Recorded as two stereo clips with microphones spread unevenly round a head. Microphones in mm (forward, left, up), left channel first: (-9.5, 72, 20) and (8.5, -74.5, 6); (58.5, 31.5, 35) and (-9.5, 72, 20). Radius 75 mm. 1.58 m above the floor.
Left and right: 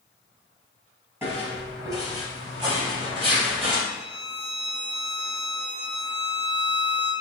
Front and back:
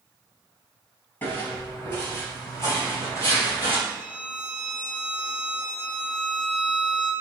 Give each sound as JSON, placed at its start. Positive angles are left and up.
{"t": 1.2, "sound": "footsteps", "azimuth_deg": -10, "distance_m": 1.9}
{"t": 3.9, "sound": "a violin", "azimuth_deg": -80, "distance_m": 1.9}